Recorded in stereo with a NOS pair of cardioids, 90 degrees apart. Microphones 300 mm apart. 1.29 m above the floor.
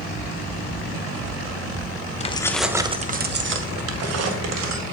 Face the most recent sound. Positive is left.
turn(degrees=-65)